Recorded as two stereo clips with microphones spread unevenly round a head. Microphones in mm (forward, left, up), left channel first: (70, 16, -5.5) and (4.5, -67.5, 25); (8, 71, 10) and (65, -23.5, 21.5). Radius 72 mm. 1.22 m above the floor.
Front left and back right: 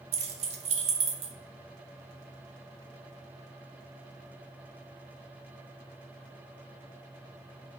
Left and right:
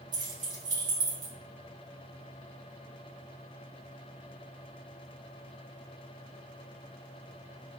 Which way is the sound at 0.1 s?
120° right.